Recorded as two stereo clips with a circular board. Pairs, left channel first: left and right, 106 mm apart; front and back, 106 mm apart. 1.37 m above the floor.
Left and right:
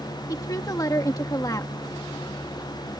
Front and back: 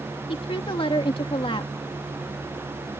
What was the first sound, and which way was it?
A woman speaking, 35° left.